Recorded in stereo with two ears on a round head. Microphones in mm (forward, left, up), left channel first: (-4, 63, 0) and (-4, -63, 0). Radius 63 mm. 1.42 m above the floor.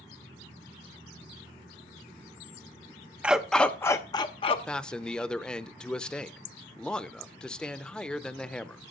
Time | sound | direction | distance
3.2 | a dog barking | 10° right (ahead or behind) | 0.8 m
4.7 | a man speaking | 5° left (ahead or behind) | 0.7 m